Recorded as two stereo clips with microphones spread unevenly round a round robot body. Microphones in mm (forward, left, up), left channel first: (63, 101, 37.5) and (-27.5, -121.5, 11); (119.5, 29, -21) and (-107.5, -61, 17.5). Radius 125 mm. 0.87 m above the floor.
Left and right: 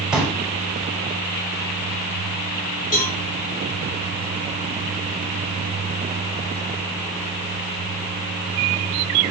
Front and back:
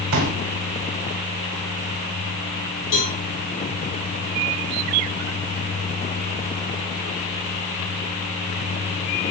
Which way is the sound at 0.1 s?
160° left.